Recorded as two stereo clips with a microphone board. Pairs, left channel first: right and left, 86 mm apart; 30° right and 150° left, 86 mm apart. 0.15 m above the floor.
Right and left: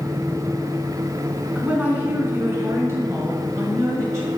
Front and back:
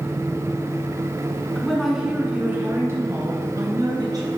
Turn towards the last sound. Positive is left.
turn(degrees=135)